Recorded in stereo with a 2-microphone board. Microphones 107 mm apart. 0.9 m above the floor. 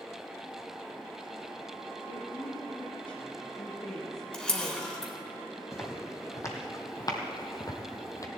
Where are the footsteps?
25° left (ahead or behind), 2.0 m; by 8.3 s 30° left (ahead or behind), 1.2 m.